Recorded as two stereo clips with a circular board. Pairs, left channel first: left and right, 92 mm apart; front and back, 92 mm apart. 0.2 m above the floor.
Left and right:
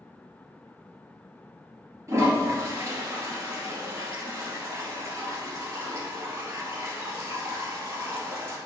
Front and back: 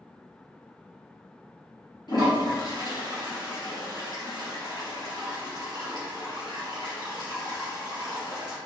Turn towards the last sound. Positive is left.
turn(degrees=-35)